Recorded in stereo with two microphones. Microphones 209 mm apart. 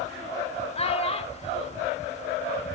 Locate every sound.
0.8 s a child speaking: 30° left (ahead or behind), 1.0 m